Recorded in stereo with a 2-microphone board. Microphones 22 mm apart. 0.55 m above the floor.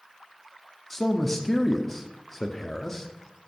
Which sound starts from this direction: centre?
A man speaking, at 0.9 s.